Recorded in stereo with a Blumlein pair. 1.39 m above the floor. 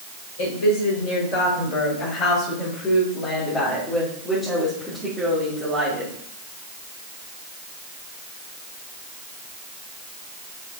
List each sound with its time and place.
0.4 s a woman speaking: 60° left, 5 m; by 6.1 s 20° right, 3.5 m